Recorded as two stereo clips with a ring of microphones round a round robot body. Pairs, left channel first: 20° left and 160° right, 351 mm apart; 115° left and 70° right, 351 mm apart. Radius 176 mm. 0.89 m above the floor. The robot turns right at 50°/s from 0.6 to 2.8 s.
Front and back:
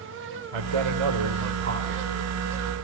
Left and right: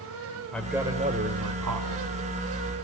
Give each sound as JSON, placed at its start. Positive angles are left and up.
{"t": 0.5, "sound": "a man speaking", "azimuth_deg": -160, "distance_m": 4.0}